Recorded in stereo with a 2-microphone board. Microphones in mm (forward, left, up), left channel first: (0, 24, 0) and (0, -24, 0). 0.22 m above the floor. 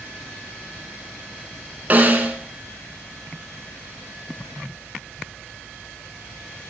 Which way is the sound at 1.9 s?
40° right (ahead or behind).